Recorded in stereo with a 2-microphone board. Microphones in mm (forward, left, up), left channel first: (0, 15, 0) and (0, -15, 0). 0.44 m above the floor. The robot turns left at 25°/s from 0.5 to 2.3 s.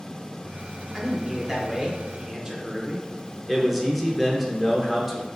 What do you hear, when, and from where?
0.9 s a man speaking: 15° right (ahead or behind), 0.9 m; by 3.1 s 25° right (ahead or behind), 0.9 m
3.5 s a man speaking: 5° right (ahead or behind), 0.8 m